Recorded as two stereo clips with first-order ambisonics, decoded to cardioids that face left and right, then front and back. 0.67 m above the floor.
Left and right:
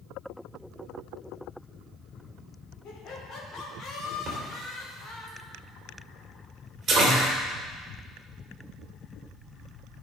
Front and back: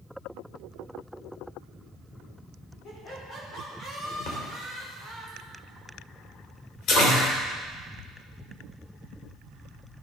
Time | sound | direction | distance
2.8 | laughter | 45° left | 2.5 m
4.3 | a splash | 30° right | 2.5 m